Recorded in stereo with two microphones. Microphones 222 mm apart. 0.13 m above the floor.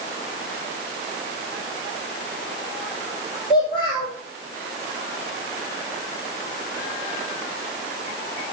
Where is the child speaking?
20° left (ahead or behind), 3.5 m.